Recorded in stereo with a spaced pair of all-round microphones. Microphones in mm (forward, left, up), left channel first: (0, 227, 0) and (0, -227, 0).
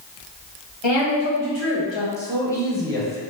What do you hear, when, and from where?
0.8 s a woman speaking: 75° left (ahead or behind), 1.6 m; by 2.1 s 65° left (ahead or behind), 0.9 m
2.2 s a man speaking: 5° left (ahead or behind), 0.9 m